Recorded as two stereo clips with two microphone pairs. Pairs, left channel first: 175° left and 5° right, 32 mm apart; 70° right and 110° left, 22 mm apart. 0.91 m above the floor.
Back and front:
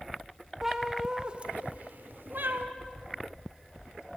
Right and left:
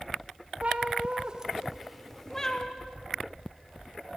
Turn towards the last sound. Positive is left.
turn(degrees=-5)